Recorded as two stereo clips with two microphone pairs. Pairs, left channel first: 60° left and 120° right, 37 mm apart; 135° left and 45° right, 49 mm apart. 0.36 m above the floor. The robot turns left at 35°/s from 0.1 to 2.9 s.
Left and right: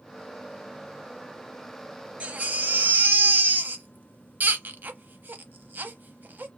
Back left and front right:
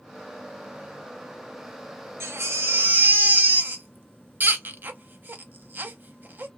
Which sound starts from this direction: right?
A baby crying, at 2.2 s.